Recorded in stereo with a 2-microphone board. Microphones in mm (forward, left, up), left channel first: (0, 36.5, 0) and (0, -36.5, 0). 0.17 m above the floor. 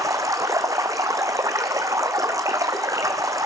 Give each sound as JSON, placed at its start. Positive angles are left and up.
{"t": 0.0, "sound": "running water", "side_deg": -50, "distance_m": 1.0}